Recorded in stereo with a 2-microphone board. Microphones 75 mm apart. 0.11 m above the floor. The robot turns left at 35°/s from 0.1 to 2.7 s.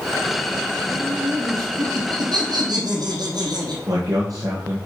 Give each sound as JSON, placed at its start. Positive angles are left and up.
{"t": 0.9, "sound": "laughter", "azimuth_deg": -45, "distance_m": 3.5}
{"t": 3.9, "sound": "a man speaking", "side_deg": -50, "distance_m": 2.5}